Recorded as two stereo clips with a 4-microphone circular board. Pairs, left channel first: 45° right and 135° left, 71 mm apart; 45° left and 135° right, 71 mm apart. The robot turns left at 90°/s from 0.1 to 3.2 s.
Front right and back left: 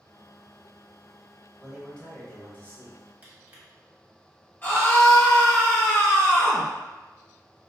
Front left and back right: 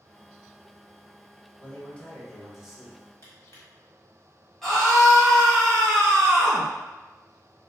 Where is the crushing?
80° left, 1.2 m.